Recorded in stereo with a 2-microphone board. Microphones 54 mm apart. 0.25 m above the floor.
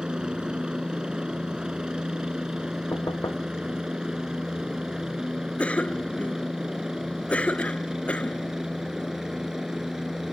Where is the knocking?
85° left.